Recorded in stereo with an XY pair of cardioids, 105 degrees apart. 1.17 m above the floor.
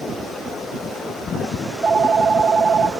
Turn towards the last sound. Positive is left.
turn(degrees=-35)